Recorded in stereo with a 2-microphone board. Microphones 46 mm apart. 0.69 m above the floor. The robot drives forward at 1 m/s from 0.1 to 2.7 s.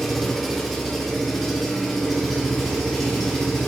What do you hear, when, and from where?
0.0 s an engine running: 10° left (ahead or behind), 1.5 m; by 3.7 s 5° left (ahead or behind), 4 m